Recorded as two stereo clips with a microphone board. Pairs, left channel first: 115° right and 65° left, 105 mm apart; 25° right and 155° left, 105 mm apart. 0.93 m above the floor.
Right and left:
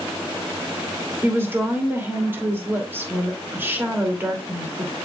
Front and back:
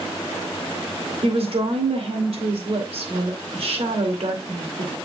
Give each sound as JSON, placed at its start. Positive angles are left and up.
{"t": 1.2, "sound": "a woman speaking", "azimuth_deg": 135, "distance_m": 2.5}